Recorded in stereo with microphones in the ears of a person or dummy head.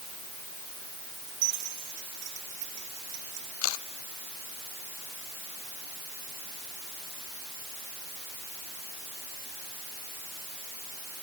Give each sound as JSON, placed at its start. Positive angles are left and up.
{"t": 1.3, "sound": "keys jangling", "side_deg": -60}
{"t": 3.6, "sound": "a camera shutter", "side_deg": 80}